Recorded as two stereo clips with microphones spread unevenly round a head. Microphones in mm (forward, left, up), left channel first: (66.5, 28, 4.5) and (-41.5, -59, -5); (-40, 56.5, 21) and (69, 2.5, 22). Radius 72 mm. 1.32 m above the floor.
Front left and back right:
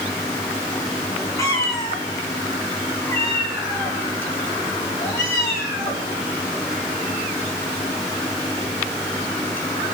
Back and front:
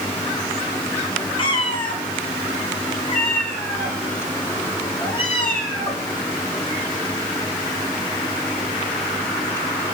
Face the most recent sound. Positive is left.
turn(degrees=110)